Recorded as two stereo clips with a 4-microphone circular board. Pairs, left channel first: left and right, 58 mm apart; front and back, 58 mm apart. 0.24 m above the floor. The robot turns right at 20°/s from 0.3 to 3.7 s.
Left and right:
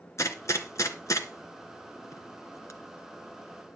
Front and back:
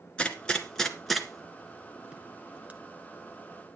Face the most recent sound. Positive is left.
turn(degrees=140)